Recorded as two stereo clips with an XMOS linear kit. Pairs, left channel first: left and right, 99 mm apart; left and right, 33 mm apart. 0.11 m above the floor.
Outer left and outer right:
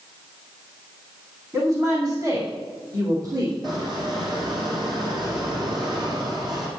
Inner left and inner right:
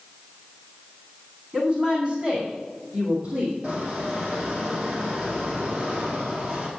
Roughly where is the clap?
No clap in this recording.